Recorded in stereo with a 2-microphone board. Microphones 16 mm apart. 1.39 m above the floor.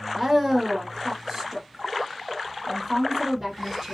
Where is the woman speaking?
20° right (ahead or behind), 1.1 m.